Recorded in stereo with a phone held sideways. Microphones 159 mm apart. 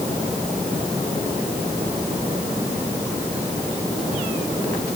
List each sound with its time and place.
Only background noise.